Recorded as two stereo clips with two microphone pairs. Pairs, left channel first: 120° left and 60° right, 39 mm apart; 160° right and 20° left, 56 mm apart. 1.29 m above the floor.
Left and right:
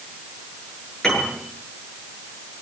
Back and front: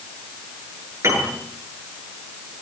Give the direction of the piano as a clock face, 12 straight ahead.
11 o'clock.